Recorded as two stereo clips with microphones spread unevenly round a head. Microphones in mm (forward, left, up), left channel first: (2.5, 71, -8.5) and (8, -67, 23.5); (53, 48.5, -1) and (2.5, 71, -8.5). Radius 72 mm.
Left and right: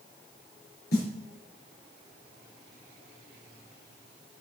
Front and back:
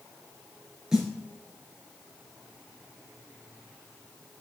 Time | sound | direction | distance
0.9 | a snare drum | 75° left | 4 m